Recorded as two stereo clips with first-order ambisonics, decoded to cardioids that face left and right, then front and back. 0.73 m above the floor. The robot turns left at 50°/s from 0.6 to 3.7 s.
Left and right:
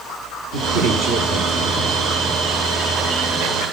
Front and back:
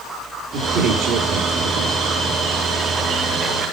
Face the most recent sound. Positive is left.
turn(degrees=95)